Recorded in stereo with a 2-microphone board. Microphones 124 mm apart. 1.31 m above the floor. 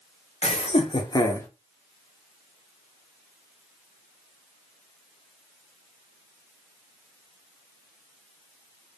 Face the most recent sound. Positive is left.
turn(degrees=15)  # may be behind; listen again after turning